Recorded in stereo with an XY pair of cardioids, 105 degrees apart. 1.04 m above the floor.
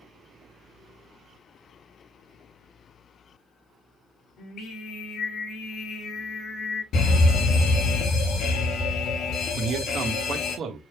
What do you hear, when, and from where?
4.4 s singing: 65° left, 2.5 m
6.9 s a fire alarm: 70° left, 3.5 m
9.6 s a man speaking: 65° right, 1.4 m